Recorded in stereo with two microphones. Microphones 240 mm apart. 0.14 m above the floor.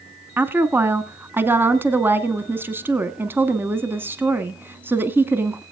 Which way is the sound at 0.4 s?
10° right (ahead or behind).